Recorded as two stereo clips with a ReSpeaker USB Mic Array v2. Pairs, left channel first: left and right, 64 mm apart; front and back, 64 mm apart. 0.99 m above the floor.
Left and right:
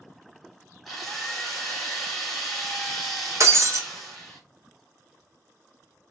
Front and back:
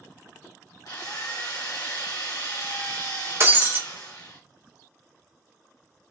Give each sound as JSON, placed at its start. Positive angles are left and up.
{"t": 0.8, "sound": "a drill", "azimuth_deg": 0, "distance_m": 1.0}
{"t": 3.4, "sound": "breaking glass", "azimuth_deg": -130, "distance_m": 0.5}